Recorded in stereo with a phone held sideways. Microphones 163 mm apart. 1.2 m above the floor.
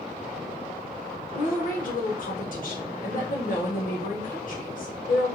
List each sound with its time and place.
1.3 s a woman speaking: 55° left (ahead or behind), 1.0 m